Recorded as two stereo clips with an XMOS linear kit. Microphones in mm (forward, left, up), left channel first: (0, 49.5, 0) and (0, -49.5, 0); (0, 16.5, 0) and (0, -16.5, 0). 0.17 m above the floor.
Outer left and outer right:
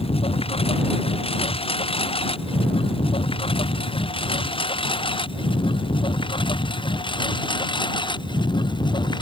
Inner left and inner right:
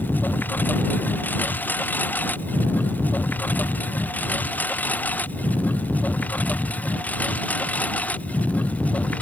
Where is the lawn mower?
75° left (ahead or behind); by 9.2 s 50° left (ahead or behind).